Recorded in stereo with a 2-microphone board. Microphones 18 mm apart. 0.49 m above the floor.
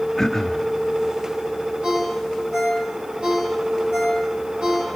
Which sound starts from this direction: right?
A ringtone, at 1.8 s.